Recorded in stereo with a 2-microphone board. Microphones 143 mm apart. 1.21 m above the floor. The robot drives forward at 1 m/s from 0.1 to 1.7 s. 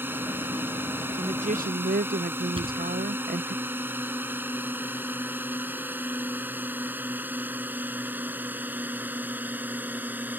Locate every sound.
0.0 s a drone: 15° right (ahead or behind); by 10.4 s 10° right (ahead or behind)
1.2 s a woman speaking: 40° right (ahead or behind); by 3.5 s 80° right
2.5 s a thud: 35° right (ahead or behind)